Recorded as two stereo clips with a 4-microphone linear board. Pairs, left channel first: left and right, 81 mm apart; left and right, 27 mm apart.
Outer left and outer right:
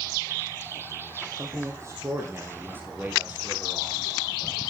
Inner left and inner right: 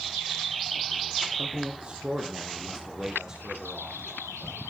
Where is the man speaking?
40° right (ahead or behind), 3.5 m; by 4.6 s 10° right (ahead or behind), 4.5 m.